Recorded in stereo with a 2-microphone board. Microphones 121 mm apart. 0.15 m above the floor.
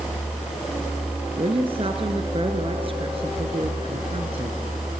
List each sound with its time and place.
1.4 s a woman speaking: 50° right (ahead or behind), 1.9 m